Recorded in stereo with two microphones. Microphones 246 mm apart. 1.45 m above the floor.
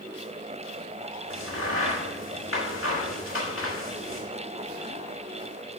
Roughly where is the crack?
Left.